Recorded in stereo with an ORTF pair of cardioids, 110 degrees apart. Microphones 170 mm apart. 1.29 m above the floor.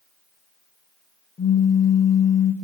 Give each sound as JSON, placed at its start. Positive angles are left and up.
{"t": 1.4, "sound": "a pop", "azimuth_deg": 20, "distance_m": 1.2}